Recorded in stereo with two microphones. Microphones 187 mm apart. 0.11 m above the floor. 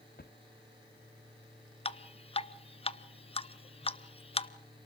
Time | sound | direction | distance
0.2 | a drawer | 55° left (ahead or behind) | 1.2 m
1.9 | dripping | 30° left (ahead or behind) | 0.7 m